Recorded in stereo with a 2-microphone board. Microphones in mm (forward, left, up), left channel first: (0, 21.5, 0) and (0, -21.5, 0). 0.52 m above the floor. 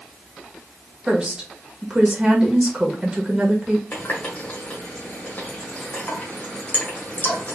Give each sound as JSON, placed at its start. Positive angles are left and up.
{"t": 1.1, "sound": "a woman speaking", "side_deg": -25, "distance_m": 1.4}
{"t": 3.9, "sound": "a running tap", "side_deg": 40, "distance_m": 1.4}